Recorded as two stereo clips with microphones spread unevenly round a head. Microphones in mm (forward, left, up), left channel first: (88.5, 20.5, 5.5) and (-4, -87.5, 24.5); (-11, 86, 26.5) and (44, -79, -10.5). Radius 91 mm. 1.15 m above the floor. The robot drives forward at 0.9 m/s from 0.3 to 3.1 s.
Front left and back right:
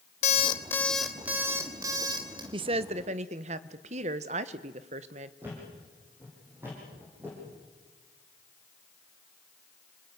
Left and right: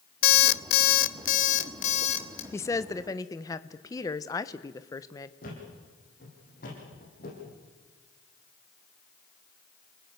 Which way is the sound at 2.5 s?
170° right.